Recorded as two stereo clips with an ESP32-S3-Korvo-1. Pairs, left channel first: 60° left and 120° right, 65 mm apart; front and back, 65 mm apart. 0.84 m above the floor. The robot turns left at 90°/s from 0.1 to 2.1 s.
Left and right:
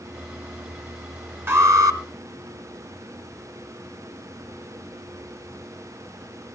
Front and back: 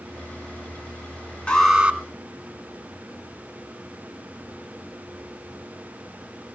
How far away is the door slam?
I don't hear a door slam.